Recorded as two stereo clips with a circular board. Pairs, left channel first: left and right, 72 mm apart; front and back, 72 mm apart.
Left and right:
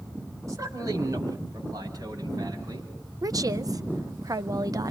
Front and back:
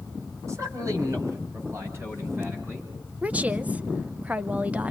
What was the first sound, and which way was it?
A man speaking, 135° right.